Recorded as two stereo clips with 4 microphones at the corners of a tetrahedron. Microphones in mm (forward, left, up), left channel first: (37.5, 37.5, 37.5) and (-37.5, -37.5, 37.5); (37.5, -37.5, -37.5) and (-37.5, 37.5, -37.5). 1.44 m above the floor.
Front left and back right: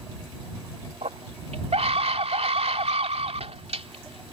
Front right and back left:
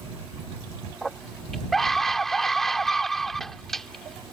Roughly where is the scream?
Behind right.